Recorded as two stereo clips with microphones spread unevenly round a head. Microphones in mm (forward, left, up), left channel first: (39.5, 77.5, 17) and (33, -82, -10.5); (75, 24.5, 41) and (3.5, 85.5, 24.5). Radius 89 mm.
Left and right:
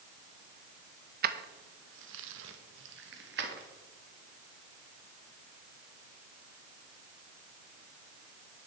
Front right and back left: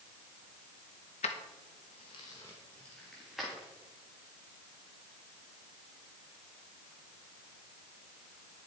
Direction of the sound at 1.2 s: 60° right.